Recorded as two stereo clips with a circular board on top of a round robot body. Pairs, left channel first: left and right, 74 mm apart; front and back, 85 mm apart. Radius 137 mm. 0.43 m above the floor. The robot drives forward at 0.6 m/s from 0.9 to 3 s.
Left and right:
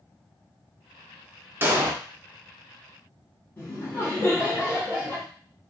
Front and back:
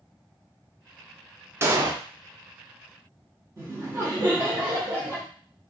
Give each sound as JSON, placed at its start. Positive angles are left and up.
{"t": 1.6, "sound": "an explosion", "azimuth_deg": -135, "distance_m": 0.7}
{"t": 3.6, "sound": "laughter", "azimuth_deg": 140, "distance_m": 1.2}